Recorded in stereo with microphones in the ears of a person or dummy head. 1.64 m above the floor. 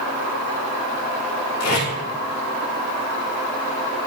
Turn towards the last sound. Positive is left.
turn(degrees=75)  # may be behind; listen again after turning